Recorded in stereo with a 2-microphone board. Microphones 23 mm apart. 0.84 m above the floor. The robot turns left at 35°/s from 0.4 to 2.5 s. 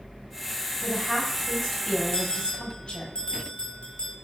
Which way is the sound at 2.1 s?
40° left (ahead or behind).